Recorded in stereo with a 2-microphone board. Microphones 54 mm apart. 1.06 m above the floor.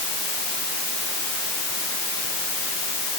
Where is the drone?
No drone in this recording.